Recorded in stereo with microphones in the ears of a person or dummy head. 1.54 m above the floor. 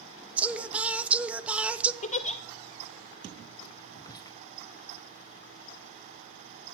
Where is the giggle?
40° left (ahead or behind), 0.5 m.